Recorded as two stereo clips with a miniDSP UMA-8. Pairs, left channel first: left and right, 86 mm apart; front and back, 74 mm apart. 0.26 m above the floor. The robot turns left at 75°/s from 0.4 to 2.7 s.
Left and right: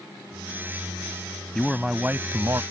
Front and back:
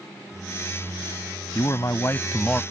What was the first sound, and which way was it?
A man speaking, 10° left.